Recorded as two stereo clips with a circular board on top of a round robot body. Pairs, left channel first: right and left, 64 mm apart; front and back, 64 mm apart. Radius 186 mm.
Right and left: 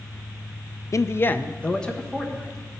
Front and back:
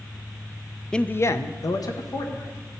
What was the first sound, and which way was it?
A man speaking, 75° right.